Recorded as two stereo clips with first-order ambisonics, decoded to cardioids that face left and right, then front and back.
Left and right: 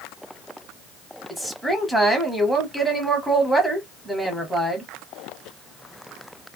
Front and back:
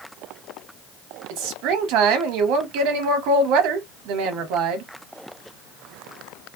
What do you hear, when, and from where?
1.3 s a woman speaking: straight behind, 0.9 m